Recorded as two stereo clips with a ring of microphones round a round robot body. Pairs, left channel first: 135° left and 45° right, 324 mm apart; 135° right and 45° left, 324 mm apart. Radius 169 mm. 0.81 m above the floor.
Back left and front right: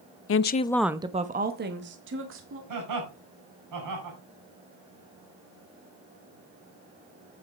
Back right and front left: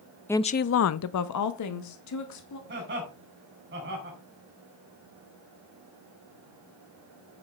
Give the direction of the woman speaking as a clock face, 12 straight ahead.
7 o'clock.